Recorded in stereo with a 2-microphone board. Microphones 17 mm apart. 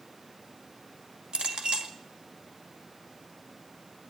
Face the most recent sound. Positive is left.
turn(degrees=-65)  # may be behind; listen again after turning